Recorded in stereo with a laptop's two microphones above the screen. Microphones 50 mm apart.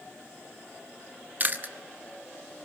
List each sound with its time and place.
1.4 s chewing: 40° right (ahead or behind), 0.8 m